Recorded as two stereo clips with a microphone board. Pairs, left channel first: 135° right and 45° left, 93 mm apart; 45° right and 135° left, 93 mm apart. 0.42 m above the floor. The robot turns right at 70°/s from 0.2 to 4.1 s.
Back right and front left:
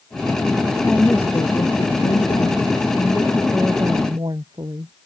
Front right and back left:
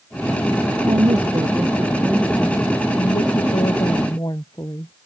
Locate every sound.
0.8 s a woman speaking: 135° left; by 4.9 s 5° left